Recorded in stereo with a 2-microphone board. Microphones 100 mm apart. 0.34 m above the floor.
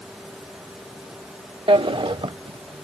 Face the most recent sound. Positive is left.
turn(degrees=-60)  # may be behind; listen again after turning